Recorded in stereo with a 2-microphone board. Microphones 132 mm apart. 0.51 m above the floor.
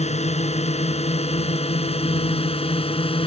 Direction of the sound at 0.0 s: 50° left (ahead or behind).